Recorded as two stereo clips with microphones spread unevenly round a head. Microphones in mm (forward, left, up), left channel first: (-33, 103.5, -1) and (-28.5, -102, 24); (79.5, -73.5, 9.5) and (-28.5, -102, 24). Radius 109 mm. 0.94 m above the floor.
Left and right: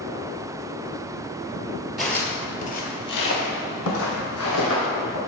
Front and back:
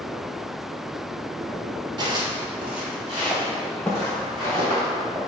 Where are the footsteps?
170° right, 1.2 m; by 5.2 s 90° left, 3.5 m.